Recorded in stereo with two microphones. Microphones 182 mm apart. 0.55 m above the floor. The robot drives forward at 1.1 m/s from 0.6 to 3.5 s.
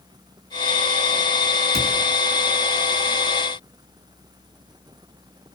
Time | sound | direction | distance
1.7 | a cupboard door | 65° right (ahead or behind) | 6.5 m